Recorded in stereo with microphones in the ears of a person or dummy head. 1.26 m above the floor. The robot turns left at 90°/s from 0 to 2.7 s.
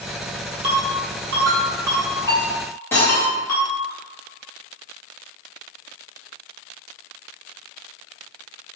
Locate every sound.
0.6 s a ringtone: 45° right (ahead or behind), 1.3 m; by 3.9 s 45° left (ahead or behind), 1.3 m
2.9 s cutlery clinking: 15° left (ahead or behind), 0.6 m